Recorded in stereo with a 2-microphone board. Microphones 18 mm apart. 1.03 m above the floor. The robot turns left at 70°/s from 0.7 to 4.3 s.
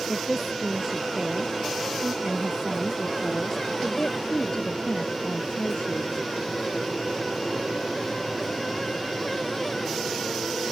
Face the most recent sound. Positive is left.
turn(degrees=100)